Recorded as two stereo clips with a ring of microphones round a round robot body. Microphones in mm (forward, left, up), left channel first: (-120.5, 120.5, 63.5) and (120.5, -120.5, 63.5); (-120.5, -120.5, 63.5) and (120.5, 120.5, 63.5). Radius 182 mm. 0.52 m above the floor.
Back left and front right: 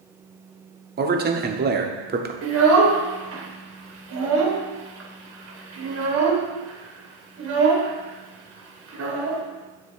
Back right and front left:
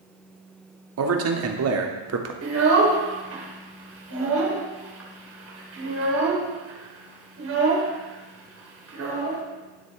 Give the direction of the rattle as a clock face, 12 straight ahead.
No rattle in this recording.